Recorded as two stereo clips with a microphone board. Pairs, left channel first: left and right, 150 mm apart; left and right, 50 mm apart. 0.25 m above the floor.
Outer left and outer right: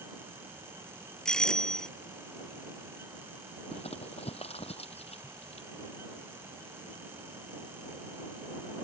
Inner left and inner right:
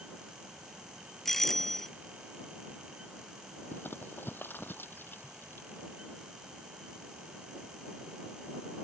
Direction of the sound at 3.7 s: 45° left (ahead or behind).